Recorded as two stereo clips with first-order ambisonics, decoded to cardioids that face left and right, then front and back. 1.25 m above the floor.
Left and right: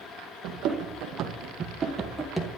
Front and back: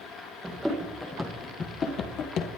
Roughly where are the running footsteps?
Right.